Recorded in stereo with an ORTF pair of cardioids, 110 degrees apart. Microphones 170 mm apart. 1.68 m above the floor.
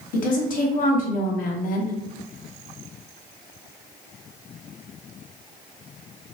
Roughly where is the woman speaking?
Ahead left.